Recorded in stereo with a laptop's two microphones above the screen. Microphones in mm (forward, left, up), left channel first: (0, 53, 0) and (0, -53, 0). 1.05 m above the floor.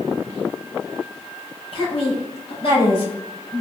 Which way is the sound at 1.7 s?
60° left (ahead or behind).